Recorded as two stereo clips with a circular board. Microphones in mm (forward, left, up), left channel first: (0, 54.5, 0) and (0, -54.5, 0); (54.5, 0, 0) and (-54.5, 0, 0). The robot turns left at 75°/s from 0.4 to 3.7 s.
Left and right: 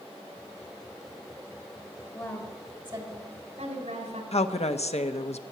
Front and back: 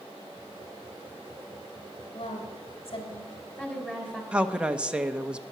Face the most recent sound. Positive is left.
turn(degrees=100)